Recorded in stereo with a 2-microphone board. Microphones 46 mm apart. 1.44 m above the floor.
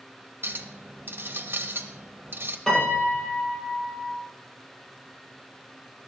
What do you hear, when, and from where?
0.4 s a clink: 55° right (ahead or behind), 1.1 m
2.7 s a piano: 15° left (ahead or behind), 6.5 m